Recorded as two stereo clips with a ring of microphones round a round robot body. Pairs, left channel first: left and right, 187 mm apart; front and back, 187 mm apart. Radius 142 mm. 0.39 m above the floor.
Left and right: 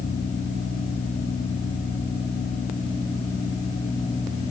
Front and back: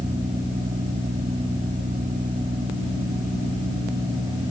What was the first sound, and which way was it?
Only background noise.